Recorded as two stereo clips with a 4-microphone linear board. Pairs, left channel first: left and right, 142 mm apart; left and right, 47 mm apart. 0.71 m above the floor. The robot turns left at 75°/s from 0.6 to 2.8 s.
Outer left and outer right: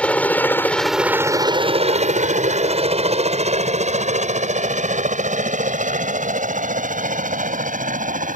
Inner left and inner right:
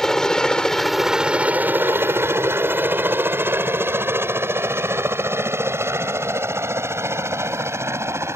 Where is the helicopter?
10° left (ahead or behind); by 8.4 s 75° right (ahead or behind).